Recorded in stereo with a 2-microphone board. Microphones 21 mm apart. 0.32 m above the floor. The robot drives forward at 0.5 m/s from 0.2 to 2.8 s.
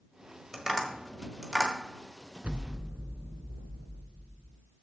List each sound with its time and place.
0.5 s tapping: 10° right (ahead or behind), 1.6 m
2.4 s an explosion: 80° right, 0.5 m; by 4.6 s 75° right (ahead or behind), 0.6 m